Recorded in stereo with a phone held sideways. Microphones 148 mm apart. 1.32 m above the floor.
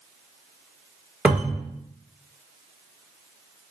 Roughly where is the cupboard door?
Centre.